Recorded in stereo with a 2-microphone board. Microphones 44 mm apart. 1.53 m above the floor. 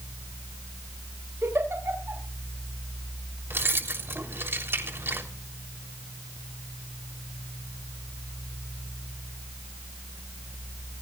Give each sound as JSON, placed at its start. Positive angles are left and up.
{"t": 1.4, "sound": "a giggle", "side_deg": -60, "distance_m": 8.5}
{"t": 3.5, "sound": "keys jangling", "side_deg": -60, "distance_m": 3.5}